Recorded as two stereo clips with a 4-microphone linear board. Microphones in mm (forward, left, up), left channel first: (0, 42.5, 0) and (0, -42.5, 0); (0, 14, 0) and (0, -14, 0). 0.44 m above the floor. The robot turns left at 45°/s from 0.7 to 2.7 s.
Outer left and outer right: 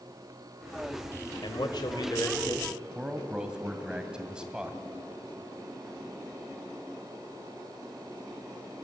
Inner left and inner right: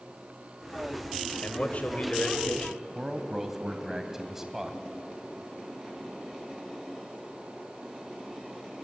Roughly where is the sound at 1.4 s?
Left.